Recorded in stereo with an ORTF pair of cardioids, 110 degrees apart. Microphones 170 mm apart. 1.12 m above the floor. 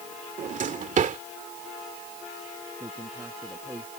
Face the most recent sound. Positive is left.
turn(degrees=-15)